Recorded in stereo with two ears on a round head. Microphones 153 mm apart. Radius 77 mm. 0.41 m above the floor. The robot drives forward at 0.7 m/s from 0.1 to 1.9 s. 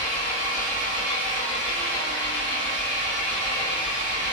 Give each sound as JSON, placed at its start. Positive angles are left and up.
{"t": 0.0, "sound": "an engine running", "side_deg": 60, "distance_m": 1.7}